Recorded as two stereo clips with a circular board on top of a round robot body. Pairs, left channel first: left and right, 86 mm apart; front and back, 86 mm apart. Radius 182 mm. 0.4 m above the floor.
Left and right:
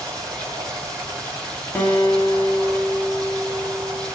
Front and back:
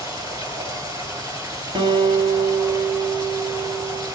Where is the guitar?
160° left, 2.5 m.